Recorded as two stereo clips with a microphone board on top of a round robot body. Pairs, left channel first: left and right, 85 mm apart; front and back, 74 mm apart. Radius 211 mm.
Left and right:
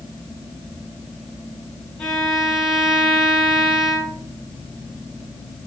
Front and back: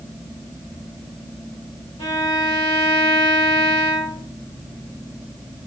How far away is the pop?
No pop in this recording.